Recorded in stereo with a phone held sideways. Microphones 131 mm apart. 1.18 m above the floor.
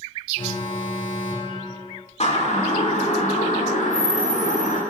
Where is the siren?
55° left (ahead or behind), 5.5 m; by 4.8 s 75° left (ahead or behind), 5.5 m.